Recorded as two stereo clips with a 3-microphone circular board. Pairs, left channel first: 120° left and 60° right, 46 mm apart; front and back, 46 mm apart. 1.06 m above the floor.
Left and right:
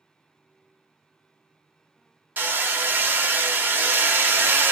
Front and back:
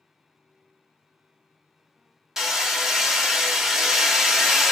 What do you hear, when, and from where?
2.4 s hammering: 100° right, 0.9 m